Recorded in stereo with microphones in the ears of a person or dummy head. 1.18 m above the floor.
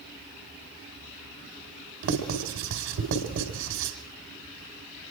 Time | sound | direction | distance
2.0 | writing | 70° right (ahead or behind) | 5 m